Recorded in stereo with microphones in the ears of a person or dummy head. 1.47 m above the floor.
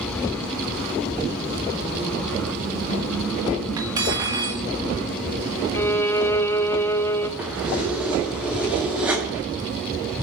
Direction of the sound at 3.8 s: 20° right (ahead or behind).